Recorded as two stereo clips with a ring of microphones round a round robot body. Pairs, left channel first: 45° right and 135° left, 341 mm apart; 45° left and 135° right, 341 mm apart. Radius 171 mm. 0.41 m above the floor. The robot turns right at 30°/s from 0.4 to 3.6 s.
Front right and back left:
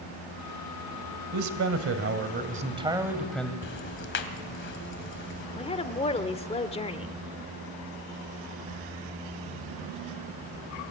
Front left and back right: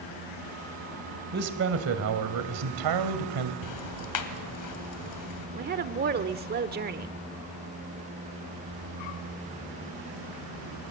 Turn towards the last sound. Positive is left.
turn(degrees=-105)